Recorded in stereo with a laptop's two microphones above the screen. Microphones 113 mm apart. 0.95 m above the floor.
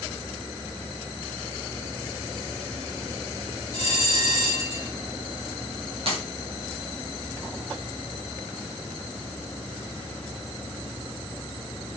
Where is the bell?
50° right (ahead or behind), 7 m.